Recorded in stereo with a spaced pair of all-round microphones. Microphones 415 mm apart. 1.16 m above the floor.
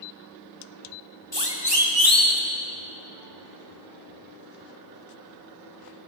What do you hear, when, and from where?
1.3 s a siren: 75° left (ahead or behind), 3 m; by 2.4 s 45° left (ahead or behind), 3 m